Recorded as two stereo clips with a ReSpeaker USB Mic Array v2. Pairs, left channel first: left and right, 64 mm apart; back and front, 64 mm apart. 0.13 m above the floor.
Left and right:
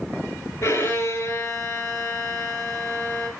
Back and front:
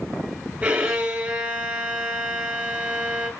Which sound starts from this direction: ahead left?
A violin, at 0.6 s.